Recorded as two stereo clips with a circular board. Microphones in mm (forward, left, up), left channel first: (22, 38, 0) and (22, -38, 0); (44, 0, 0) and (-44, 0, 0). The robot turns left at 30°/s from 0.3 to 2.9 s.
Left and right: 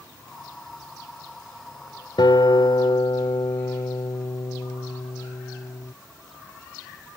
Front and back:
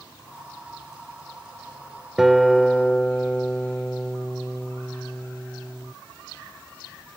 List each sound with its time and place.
2.2 s a guitar: 95° left; by 5.9 s 75° left